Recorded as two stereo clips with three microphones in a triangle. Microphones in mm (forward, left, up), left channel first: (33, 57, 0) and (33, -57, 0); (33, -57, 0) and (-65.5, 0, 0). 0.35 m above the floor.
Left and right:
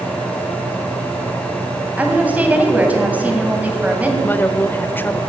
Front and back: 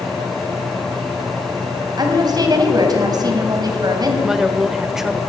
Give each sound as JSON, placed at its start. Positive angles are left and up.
{"t": 2.0, "sound": "a woman speaking", "azimuth_deg": -165, "distance_m": 2.5}
{"t": 4.2, "sound": "a woman speaking", "azimuth_deg": 70, "distance_m": 0.8}